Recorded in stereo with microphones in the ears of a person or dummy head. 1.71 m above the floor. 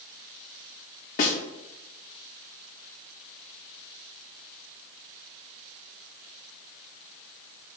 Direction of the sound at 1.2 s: 40° left (ahead or behind).